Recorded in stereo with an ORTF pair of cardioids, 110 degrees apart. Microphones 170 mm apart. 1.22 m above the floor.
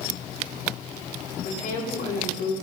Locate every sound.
1.4 s a woman speaking: 65° left, 2.5 m